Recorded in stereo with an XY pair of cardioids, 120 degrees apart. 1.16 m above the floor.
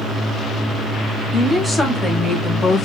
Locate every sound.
1.3 s a woman speaking: 10° left, 2.5 m; by 2.9 s 35° left, 1.5 m